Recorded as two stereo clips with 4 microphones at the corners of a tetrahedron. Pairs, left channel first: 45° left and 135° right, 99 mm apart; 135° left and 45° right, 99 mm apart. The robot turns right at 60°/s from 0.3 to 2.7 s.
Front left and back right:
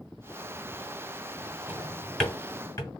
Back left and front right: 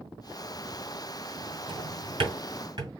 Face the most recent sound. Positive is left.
turn(degrees=-5)